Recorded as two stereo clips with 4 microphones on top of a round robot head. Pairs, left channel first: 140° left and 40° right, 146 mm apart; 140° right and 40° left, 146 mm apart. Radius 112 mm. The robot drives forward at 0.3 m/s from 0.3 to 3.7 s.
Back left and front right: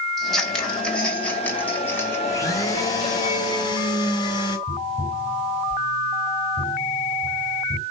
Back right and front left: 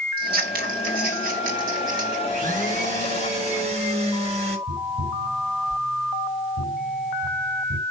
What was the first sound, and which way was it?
Scissors, 55° left.